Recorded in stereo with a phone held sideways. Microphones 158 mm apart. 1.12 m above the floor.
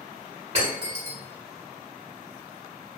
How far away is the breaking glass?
About 1.1 m.